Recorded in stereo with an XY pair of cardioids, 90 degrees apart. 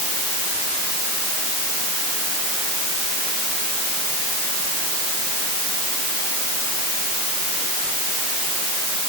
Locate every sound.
Only background noise.